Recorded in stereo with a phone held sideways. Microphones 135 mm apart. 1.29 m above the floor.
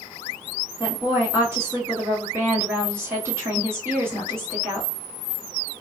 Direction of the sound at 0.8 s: 20° right (ahead or behind).